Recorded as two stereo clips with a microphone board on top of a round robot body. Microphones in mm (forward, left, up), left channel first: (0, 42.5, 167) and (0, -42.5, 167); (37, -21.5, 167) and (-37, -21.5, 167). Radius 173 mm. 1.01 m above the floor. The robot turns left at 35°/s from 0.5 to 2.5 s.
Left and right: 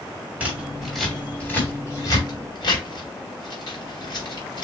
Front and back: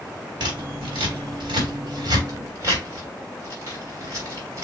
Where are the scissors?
165° right, 1.6 m; by 4.7 s 125° left, 1.6 m.